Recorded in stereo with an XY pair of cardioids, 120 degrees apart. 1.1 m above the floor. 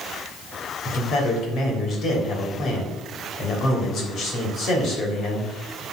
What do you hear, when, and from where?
0.8 s a man speaking: 60° left, 3 m